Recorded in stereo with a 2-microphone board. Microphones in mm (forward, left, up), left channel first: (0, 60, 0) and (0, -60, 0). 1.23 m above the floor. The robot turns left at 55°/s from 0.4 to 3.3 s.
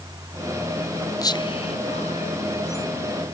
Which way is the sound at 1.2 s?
30° left (ahead or behind).